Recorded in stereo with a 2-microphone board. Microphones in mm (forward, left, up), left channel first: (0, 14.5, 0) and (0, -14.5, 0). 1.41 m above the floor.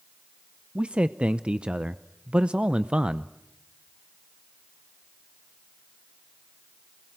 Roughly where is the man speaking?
Right.